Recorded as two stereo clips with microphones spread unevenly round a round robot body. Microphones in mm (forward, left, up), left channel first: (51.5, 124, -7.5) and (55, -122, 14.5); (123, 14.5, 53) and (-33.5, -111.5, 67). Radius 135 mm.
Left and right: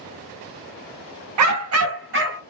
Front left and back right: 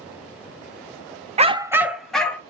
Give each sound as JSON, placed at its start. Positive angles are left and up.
{"t": 1.4, "sound": "a dog barking", "azimuth_deg": -80, "distance_m": 0.6}